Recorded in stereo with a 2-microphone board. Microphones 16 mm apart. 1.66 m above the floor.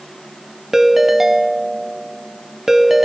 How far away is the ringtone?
About 0.6 m.